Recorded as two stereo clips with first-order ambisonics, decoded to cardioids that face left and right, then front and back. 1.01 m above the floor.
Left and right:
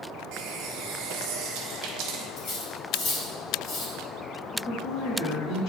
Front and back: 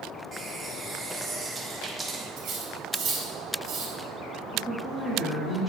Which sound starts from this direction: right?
A running tap, at 0.3 s.